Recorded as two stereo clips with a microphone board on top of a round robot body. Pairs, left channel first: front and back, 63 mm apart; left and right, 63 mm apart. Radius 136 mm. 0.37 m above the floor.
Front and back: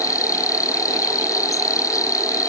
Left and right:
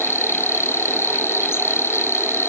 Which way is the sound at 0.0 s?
40° left.